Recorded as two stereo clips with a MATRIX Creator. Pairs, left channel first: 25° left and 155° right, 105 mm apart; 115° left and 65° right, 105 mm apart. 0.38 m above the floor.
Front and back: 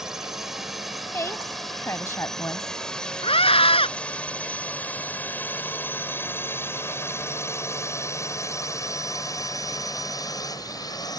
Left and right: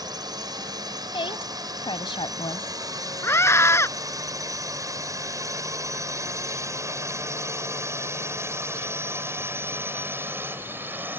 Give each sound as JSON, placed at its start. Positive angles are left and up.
{"t": 0.0, "sound": "a drone", "azimuth_deg": -75}
{"t": 1.1, "sound": "a woman speaking", "azimuth_deg": 85}
{"t": 3.2, "sound": "a scream", "azimuth_deg": 50}